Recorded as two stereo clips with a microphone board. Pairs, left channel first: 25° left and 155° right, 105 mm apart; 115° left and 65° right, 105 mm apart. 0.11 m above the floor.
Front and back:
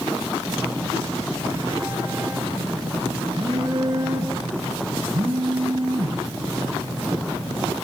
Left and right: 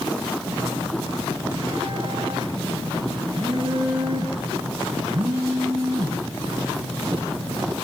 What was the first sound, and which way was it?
A phone buzzing, 110° right.